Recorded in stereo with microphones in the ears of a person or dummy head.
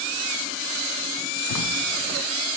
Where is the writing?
75° left (ahead or behind), 0.7 m.